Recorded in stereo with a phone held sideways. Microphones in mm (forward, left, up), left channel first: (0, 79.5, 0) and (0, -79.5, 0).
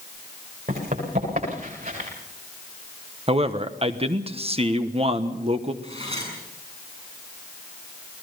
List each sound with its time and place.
0.7 s running footsteps: 60° right (ahead or behind), 9.5 m
3.3 s a man speaking: 40° right (ahead or behind), 1.1 m
5.8 s cutlery clinking: 40° right (ahead or behind), 7 m